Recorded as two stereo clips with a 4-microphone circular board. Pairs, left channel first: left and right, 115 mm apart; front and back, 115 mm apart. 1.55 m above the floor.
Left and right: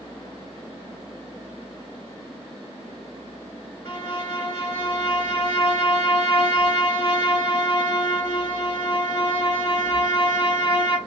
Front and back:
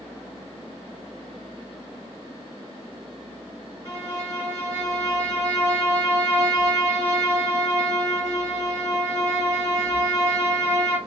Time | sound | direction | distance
3.9 | a violin | 40° left | 1.9 m